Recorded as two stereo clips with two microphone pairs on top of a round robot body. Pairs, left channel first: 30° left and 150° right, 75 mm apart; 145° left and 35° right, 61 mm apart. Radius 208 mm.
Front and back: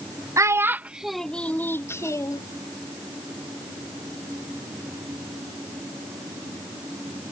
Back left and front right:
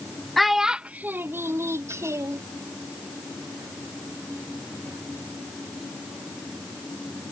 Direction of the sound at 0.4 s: 120° right.